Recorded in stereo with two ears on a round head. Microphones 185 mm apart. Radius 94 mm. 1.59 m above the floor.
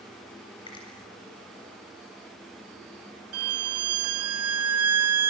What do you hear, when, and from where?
0.7 s a finger snap: 25° left (ahead or behind), 8.5 m
3.3 s a violin: 75° right (ahead or behind), 1.4 m